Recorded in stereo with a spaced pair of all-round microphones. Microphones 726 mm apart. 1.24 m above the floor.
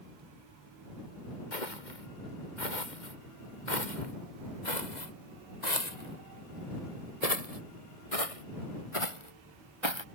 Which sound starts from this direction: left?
Footsteps, at 1.5 s.